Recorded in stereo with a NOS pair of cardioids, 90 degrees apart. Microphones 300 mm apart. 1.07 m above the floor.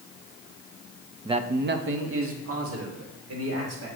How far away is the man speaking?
About 0.5 m.